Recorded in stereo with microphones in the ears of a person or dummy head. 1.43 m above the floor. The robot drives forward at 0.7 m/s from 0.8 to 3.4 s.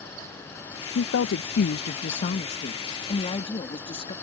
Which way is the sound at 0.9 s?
70° left (ahead or behind).